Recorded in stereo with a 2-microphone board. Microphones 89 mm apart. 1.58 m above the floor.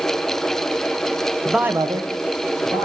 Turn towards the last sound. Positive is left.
turn(degrees=-75)  # may be behind; listen again after turning